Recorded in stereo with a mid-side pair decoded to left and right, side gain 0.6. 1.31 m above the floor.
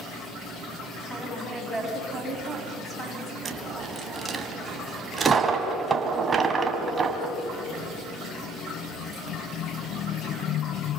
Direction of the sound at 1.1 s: 15° right.